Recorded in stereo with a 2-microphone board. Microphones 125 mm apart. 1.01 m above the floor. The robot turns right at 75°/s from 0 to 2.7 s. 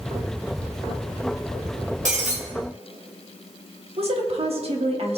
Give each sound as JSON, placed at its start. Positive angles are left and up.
{"t": 2.0, "sound": "breaking glass", "side_deg": -80, "distance_m": 2.0}
{"t": 4.0, "sound": "a woman speaking", "side_deg": -55, "distance_m": 1.5}